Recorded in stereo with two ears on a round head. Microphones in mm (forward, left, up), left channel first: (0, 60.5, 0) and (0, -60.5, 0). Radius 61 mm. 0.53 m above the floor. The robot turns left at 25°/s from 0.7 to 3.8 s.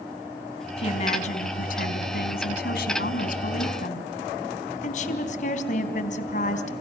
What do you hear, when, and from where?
0.8 s a woman speaking: 135° left, 3.5 m; by 6.7 s 60° left, 3.5 m